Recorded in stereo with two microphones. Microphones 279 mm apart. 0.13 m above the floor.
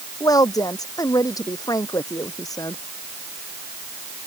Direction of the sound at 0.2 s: 10° left (ahead or behind).